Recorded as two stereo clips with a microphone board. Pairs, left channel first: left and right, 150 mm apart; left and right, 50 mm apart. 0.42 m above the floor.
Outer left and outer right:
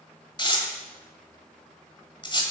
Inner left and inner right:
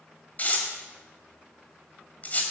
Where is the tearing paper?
35° left (ahead or behind), 1.7 m.